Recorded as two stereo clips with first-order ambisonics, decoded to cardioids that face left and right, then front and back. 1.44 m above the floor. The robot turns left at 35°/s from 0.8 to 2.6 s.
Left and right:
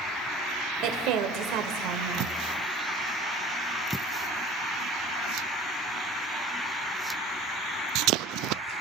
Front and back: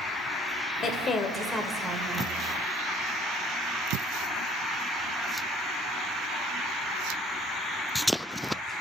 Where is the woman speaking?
60° right, 0.9 m; by 2.3 s 110° right, 0.9 m.